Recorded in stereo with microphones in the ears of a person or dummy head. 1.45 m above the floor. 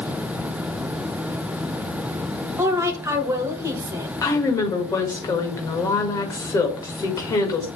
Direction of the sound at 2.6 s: 15° right (ahead or behind).